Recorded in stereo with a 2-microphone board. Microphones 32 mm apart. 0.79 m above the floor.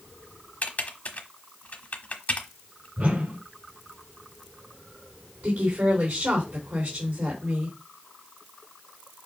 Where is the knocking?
I don't hear knocking.